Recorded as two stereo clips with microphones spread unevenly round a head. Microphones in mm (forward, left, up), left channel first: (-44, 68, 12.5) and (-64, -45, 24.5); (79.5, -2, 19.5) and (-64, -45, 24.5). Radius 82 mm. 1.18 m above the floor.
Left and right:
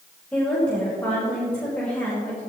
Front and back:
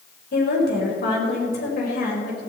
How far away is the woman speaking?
About 5.5 m.